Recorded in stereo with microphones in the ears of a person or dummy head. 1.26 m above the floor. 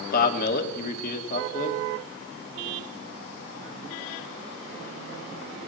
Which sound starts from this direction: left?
A man speaking, at 0.1 s.